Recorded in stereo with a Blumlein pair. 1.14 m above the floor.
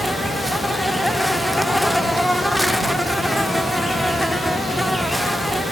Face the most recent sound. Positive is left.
turn(degrees=0)